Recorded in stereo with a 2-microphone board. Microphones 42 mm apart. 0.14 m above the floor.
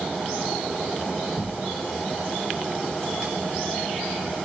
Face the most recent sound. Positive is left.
turn(degrees=10)  # may be behind; listen again after turning